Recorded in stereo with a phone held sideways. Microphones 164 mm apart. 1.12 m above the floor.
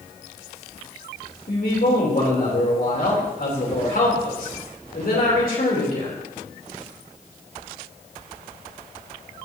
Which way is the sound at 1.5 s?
65° left (ahead or behind).